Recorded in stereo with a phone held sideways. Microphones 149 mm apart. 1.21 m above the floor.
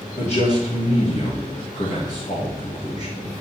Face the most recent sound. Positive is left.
turn(degrees=50)  # may be behind; listen again after turning